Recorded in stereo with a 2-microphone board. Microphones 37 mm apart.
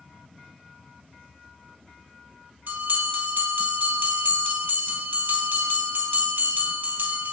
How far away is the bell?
About 2.5 m.